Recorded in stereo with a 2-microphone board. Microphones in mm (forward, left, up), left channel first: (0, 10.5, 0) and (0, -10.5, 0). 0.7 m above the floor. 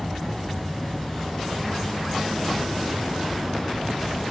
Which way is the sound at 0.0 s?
25° left (ahead or behind).